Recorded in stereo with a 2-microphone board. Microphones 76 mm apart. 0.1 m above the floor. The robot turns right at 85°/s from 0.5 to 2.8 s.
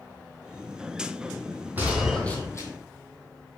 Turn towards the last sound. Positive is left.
turn(degrees=60)